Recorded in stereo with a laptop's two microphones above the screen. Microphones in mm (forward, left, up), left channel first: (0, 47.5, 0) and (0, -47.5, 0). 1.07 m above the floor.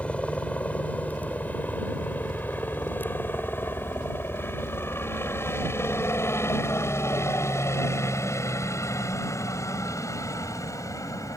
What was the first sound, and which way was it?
A helicopter, 15° left (ahead or behind).